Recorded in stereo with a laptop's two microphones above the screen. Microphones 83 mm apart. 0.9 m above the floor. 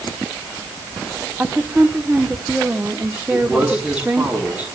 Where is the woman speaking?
20° right (ahead or behind), 2.0 m.